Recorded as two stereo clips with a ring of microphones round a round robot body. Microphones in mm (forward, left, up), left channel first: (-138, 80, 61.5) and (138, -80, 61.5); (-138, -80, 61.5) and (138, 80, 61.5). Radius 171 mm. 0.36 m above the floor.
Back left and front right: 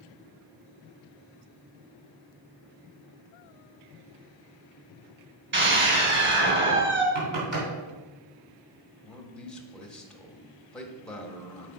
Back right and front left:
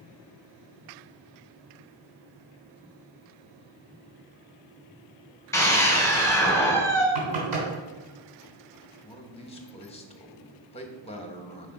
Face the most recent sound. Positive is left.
turn(degrees=-130)